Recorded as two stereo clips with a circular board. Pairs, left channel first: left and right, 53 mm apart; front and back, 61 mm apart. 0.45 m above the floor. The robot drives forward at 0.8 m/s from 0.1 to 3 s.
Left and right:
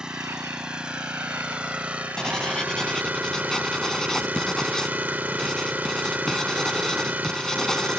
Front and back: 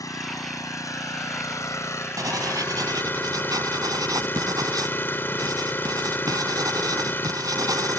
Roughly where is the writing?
Behind.